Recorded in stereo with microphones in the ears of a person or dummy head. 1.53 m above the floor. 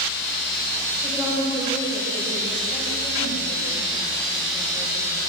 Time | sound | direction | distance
1.0 | a woman speaking | 10° right (ahead or behind) | 8.5 m